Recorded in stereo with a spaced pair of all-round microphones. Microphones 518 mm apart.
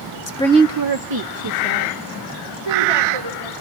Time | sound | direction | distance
0.3 | a woman speaking | 35° left (ahead or behind) | 0.5 m